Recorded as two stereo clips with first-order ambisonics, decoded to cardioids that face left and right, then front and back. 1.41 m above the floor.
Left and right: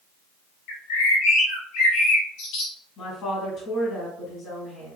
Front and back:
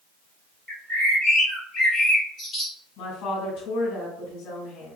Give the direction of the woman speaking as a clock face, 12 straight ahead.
11 o'clock.